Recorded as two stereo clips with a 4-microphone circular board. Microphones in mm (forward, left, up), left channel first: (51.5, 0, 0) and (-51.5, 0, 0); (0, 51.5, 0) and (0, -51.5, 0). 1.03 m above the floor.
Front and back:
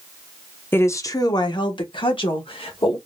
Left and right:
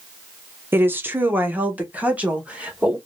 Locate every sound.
0.7 s a woman speaking: 45° right, 0.6 m; by 3.0 s 10° right, 1.6 m